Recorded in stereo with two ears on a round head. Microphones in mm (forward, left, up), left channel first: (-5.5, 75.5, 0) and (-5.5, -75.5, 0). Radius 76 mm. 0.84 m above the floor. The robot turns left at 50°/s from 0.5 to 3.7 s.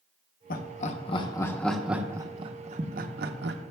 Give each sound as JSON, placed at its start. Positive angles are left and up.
{"t": 0.5, "sound": "laughter", "side_deg": 55, "distance_m": 0.8}